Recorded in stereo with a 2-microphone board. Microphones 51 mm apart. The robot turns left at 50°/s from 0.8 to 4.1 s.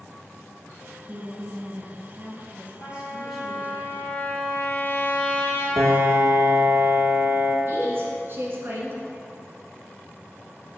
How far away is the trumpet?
About 2 m.